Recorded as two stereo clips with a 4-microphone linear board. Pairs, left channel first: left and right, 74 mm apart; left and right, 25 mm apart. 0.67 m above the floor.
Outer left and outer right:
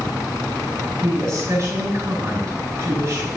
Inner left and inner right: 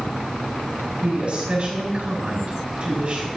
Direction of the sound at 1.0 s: 50° right (ahead or behind).